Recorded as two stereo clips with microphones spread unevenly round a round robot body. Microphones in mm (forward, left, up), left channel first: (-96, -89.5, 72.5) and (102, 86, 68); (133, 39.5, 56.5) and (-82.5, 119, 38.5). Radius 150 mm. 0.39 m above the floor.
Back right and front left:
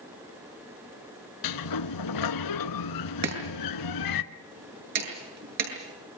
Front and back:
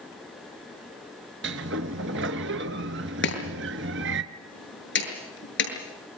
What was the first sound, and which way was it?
A sliding door, 145° right.